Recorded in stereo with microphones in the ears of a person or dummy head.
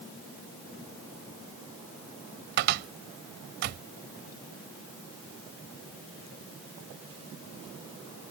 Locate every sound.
2.6 s a cupboard door: 60° right (ahead or behind)